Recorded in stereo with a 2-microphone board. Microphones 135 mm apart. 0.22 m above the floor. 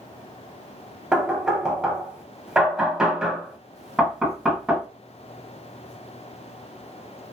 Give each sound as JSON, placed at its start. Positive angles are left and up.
{"t": 1.1, "sound": "knocking", "side_deg": -5, "distance_m": 0.7}